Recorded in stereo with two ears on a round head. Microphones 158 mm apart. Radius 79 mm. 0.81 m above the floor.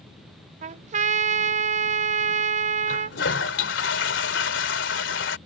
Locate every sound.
0.6 s a trumpet: 40° right (ahead or behind)
2.9 s a toilet flushing: 75° left (ahead or behind)